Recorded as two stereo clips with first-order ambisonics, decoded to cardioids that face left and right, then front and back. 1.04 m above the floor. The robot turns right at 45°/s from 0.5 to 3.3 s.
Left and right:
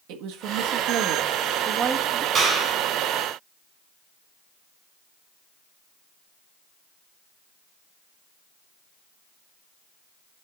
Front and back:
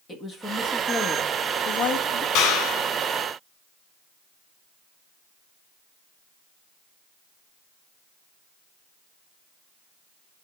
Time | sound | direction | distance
0.1 | a woman speaking | 75° right | 1.7 m
2.4 | a clap | 20° right | 3.5 m